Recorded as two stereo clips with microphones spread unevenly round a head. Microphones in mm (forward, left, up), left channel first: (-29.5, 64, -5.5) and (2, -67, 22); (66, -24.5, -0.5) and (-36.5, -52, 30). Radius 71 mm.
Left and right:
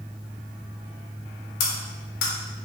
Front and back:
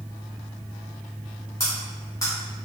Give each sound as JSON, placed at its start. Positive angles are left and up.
{"t": 1.6, "sound": "cutlery clinking", "azimuth_deg": 95, "distance_m": 0.7}